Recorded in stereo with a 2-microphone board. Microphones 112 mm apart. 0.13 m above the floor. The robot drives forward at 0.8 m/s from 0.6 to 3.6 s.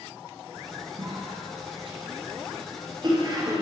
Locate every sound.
1.0 s a cough: 55° right (ahead or behind), 2.5 m; by 3.6 s 35° right (ahead or behind), 3.5 m